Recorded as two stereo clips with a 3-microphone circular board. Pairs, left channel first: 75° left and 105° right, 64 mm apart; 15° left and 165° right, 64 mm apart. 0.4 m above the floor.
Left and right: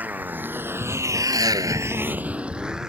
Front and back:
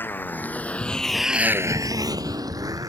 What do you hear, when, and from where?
0.0 s a motorcycle: 40° right; by 2.9 s 175° left